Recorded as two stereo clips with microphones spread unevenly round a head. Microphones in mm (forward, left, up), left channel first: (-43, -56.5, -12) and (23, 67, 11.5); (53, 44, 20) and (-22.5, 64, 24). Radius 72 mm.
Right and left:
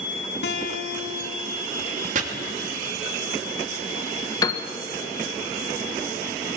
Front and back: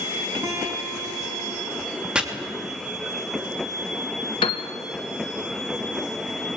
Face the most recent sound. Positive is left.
turn(degrees=-50)